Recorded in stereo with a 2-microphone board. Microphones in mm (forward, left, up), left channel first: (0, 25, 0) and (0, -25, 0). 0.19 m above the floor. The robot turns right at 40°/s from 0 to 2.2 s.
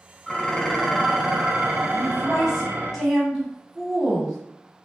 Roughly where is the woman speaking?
Centre.